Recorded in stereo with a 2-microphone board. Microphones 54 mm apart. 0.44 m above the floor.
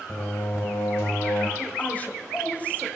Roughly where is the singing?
Left.